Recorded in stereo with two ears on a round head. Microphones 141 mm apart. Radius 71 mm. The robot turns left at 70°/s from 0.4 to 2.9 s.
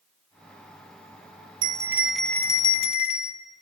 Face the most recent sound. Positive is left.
turn(degrees=130)